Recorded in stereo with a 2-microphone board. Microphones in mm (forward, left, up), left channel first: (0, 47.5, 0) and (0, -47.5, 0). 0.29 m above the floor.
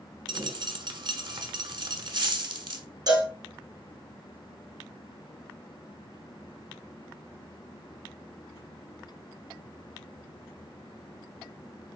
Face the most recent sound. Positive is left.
turn(degrees=-50)  # may be behind; listen again after turning